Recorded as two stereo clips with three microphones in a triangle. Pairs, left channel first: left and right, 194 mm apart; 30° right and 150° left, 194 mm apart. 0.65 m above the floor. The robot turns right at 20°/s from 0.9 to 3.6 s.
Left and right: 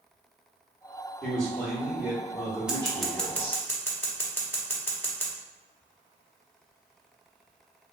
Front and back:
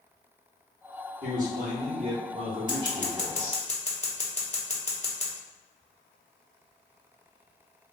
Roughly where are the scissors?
Ahead.